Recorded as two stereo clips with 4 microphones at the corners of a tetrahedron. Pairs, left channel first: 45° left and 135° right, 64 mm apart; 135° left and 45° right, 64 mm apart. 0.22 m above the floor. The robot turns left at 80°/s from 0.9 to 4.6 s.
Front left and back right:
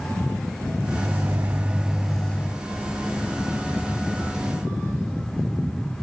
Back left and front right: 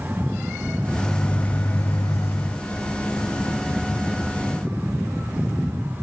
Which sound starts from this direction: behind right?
A microwave, at 1.0 s.